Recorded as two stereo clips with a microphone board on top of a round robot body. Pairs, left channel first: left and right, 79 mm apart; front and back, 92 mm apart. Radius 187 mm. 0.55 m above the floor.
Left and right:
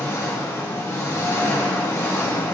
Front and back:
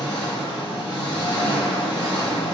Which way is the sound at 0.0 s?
35° left.